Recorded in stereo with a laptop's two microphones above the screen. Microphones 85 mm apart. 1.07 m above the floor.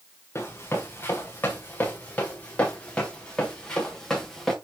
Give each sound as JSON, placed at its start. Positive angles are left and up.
{"t": 0.3, "sound": "running footsteps", "side_deg": 30, "distance_m": 5.0}